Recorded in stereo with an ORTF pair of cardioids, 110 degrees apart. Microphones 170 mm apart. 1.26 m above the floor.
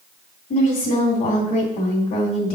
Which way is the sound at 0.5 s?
45° left.